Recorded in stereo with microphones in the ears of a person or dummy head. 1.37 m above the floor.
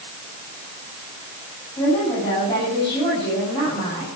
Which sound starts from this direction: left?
A woman speaking, at 1.8 s.